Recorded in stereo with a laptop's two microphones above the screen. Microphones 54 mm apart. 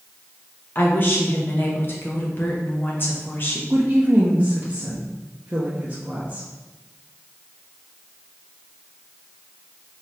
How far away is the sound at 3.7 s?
About 0.6 m.